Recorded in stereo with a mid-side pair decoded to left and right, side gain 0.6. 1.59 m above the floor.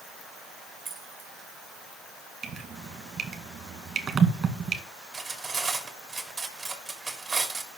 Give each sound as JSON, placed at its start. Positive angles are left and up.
{"t": 0.8, "sound": "keys jangling", "azimuth_deg": -25, "distance_m": 2.0}
{"t": 2.4, "sound": "dripping", "azimuth_deg": -35, "distance_m": 2.0}
{"t": 5.1, "sound": "cutlery clinking", "azimuth_deg": -15, "distance_m": 2.5}